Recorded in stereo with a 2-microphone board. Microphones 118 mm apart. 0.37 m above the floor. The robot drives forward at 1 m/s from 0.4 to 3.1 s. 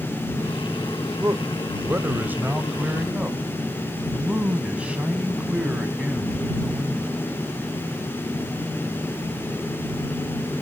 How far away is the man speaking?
About 1.0 m.